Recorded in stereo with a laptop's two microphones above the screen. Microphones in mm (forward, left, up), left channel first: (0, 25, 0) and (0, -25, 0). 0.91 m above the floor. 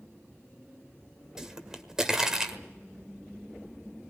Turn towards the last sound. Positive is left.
turn(degrees=-10)  # may be behind; listen again after turning